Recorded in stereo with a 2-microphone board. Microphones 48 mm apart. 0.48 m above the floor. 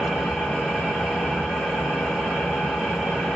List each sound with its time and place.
0.0 s an engine running: 5° right (ahead or behind), 1.0 m